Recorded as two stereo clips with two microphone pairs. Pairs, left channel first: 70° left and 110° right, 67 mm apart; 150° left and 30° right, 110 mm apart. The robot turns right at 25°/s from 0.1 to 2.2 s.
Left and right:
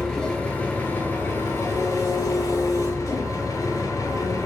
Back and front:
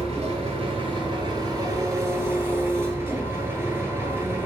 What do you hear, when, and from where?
0.0 s an engine running: 10° right, 0.7 m; by 4.5 s 40° left, 0.7 m